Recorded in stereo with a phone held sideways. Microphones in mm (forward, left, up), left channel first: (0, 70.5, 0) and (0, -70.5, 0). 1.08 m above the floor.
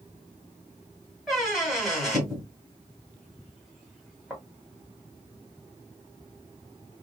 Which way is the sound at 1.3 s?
Centre (ahead or behind).